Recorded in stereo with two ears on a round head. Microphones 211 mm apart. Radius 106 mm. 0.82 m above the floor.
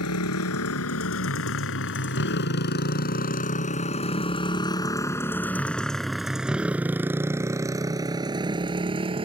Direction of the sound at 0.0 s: 75° left (ahead or behind).